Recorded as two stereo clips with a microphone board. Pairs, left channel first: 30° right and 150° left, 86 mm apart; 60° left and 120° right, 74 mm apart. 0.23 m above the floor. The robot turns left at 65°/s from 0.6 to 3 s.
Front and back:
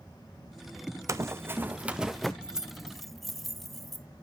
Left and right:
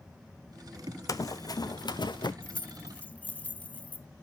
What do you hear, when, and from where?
1.1 s running footsteps: 100° left, 0.6 m; by 2.3 s 55° left, 1.0 m
2.4 s keys jangling: 90° left, 0.6 m; by 4.1 s 55° left, 0.6 m